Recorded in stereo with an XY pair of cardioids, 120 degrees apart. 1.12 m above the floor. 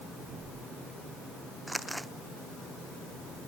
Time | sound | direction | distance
1.7 | crumpling | 5° right | ?